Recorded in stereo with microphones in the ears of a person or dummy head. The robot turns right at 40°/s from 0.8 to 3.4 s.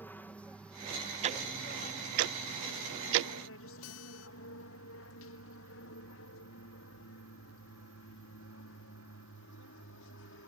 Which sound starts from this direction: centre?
An aircraft, at 0.0 s.